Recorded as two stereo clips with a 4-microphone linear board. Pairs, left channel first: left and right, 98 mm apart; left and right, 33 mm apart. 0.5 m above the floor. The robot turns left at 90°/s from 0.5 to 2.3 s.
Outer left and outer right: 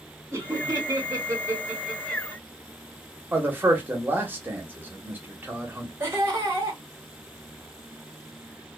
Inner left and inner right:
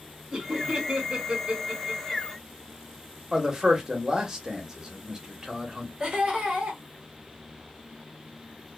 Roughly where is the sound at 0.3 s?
Right.